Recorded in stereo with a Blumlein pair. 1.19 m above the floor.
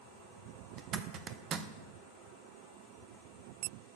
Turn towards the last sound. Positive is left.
turn(degrees=-30)